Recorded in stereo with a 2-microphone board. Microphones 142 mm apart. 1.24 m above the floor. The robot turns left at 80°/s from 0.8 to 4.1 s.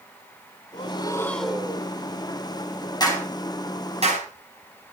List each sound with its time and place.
0.7 s breathing: 55° left, 1.9 m; by 1.9 s 30° right, 1.9 m
3.0 s a clap: 30° left (ahead or behind), 6.5 m; by 4.3 s 55° right (ahead or behind), 6.5 m